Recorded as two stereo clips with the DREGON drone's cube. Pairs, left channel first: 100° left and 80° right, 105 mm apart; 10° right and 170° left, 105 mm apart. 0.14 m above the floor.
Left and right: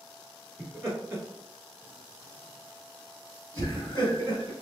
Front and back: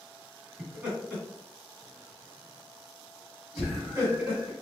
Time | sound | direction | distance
0.6 | laughter | 120° right | 1.9 m